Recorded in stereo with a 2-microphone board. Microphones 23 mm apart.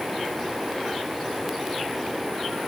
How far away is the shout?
No shout in this recording.